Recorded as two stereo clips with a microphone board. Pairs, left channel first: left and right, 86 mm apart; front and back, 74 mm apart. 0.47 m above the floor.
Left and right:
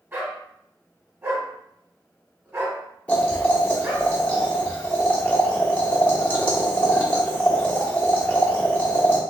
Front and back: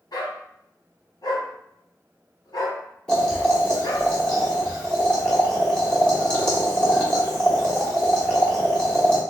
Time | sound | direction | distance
0.1 | a dog barking | 25° right | 1.2 m
3.1 | boiling | 55° left | 1.2 m